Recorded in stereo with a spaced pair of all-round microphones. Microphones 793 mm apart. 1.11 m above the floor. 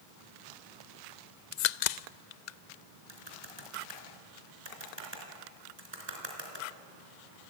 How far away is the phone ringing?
No phone ringing in this recording.